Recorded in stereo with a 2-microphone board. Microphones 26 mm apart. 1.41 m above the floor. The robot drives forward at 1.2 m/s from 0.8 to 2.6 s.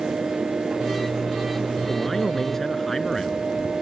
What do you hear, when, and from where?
1.9 s a man speaking: 15° left (ahead or behind)